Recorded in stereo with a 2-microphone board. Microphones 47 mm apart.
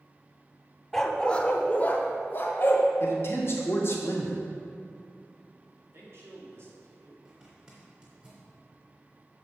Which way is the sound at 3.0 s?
60° left (ahead or behind).